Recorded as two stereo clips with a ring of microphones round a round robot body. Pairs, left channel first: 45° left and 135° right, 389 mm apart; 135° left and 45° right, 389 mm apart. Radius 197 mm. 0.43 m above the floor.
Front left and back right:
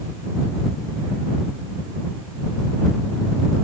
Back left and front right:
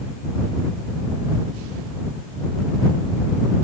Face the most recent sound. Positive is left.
No sound to turn to.